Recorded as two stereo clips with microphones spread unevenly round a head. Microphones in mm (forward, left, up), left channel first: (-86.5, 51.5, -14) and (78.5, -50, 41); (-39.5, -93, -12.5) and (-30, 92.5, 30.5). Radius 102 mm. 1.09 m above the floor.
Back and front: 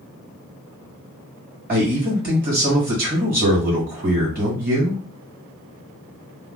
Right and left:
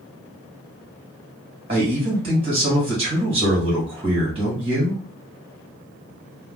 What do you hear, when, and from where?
1.7 s a man speaking: 20° left, 1.7 m